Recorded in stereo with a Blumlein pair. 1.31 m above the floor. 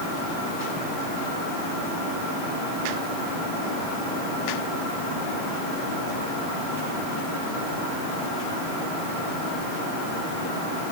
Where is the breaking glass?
I don't hear breaking glass.